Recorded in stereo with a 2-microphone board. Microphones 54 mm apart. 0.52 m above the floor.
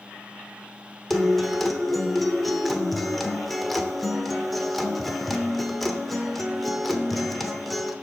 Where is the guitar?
Centre (ahead or behind), 0.8 m.